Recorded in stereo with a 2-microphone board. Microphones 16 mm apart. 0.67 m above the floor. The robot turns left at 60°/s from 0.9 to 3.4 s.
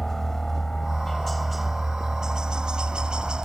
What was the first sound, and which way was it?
A helicopter, 25° left (ahead or behind).